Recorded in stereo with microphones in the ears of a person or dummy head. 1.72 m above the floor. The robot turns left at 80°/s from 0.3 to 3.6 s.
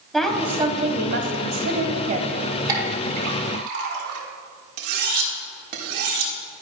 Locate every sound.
0.1 s a woman speaking: 5° left, 1.4 m; by 2.4 s 165° right, 1.4 m
2.7 s a clink: 20° right (ahead or behind), 1.9 m; by 4.2 s 60° right (ahead or behind), 1.9 m
4.8 s cutlery clinking: 55° right (ahead or behind), 1.4 m